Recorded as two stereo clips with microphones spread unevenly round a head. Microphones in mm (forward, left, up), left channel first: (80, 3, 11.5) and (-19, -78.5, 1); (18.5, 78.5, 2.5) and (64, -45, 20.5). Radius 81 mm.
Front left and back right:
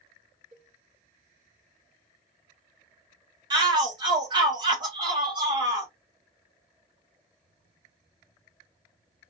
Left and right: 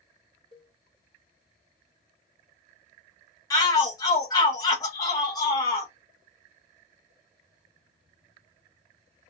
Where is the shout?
165° left, 1.3 m.